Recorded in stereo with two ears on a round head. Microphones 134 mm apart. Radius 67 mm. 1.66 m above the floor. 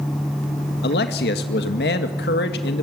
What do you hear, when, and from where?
0.8 s a man speaking: 75° left (ahead or behind), 2 m